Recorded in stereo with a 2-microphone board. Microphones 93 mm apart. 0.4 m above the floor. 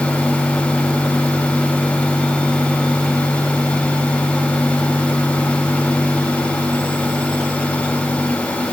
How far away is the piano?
I don't hear a piano.